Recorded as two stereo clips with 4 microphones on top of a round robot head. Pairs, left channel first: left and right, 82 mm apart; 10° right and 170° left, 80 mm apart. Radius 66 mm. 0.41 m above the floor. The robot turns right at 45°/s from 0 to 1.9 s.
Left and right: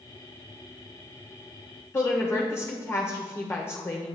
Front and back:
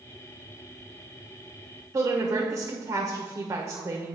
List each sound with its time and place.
1.9 s a woman speaking: 135° left, 1.4 m